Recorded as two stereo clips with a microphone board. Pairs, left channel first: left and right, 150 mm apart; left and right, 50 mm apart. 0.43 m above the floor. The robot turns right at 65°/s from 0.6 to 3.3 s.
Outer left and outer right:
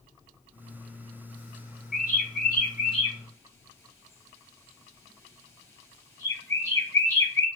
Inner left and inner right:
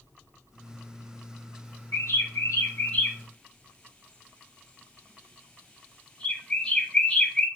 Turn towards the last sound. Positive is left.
turn(degrees=20)  # may be behind; listen again after turning